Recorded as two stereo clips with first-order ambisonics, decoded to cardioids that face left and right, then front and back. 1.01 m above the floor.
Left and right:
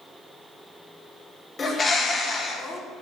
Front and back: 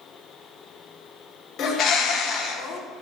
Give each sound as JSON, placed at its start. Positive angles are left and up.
{"t": 1.6, "sound": "a bird", "azimuth_deg": 30, "distance_m": 0.7}